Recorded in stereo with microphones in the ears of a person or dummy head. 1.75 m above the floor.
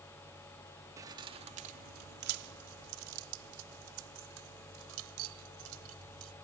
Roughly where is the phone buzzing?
I don't hear a phone buzzing.